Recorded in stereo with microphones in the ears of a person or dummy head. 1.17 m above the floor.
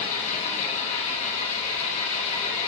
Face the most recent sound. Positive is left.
turn(degrees=50)  # may be behind; listen again after turning